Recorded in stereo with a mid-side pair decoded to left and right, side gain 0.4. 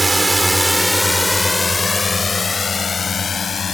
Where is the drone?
20° right; by 3.7 s 50° left.